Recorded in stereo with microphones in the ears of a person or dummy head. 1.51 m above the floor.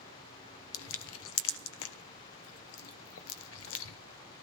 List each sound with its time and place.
0.7 s crushing: 75° left (ahead or behind), 1.1 m